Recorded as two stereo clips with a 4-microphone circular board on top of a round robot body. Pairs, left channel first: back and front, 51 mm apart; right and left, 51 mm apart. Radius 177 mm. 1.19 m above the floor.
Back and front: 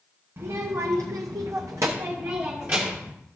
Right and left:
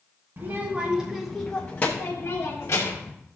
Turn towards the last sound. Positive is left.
turn(degrees=-55)